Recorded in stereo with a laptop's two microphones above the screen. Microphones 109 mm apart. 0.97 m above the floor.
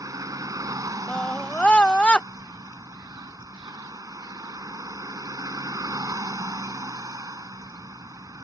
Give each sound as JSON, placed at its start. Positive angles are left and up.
{"t": 0.0, "sound": "a vehicle", "side_deg": -30}
{"t": 1.1, "sound": "a scream", "side_deg": 10}